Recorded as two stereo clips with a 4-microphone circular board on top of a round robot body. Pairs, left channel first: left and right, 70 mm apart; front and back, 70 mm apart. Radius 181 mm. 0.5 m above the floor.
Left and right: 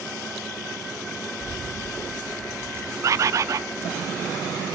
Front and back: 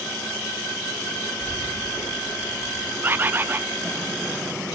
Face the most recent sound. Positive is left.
turn(degrees=-125)